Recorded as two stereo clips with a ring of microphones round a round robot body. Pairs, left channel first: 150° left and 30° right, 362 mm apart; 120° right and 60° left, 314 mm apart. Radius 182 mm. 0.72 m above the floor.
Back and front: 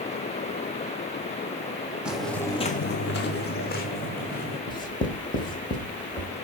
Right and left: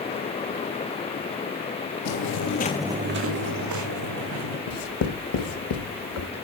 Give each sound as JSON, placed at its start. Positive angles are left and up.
{"t": 2.0, "sound": "footsteps", "azimuth_deg": -115, "distance_m": 1.4}
{"t": 4.7, "sound": "writing", "azimuth_deg": -130, "distance_m": 1.1}